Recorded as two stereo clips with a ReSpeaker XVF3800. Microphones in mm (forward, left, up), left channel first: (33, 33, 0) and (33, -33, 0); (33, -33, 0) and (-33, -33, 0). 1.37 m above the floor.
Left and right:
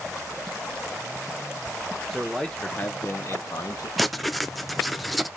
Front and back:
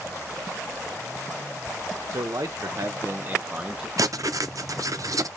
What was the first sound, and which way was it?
A man speaking, straight behind.